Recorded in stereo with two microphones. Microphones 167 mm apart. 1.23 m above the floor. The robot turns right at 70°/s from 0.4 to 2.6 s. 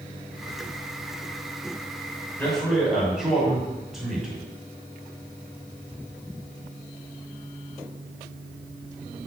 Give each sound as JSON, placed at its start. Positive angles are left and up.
{"t": 2.4, "sound": "a man speaking", "side_deg": 15, "distance_m": 5.5}